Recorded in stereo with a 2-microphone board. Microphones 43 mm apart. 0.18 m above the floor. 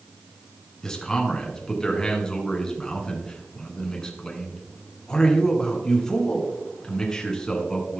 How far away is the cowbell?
I don't hear a cowbell.